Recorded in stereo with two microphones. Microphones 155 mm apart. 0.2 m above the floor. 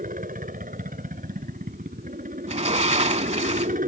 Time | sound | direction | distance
0.0 | a helicopter | 60° right (ahead or behind) | ?
2.5 | a sliding door | 45° right (ahead or behind) | ?